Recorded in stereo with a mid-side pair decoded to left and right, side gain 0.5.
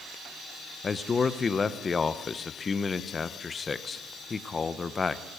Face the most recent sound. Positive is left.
turn(degrees=35)